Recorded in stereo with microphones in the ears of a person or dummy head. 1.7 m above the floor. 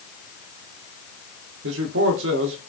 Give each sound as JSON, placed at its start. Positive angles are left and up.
{"t": 1.6, "sound": "a man speaking", "side_deg": -80, "distance_m": 0.7}